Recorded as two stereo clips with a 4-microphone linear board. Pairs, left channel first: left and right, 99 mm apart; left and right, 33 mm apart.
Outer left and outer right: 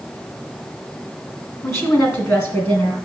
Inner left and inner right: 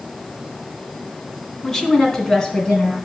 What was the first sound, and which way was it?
A woman speaking, 30° left (ahead or behind).